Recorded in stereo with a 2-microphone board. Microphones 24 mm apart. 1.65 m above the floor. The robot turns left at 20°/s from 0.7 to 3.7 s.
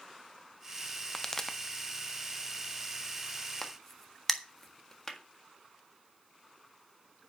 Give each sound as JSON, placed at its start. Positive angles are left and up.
{"t": 1.1, "sound": "a pop", "side_deg": 25, "distance_m": 0.8}
{"t": 3.6, "sound": "a crack", "side_deg": 15, "distance_m": 1.5}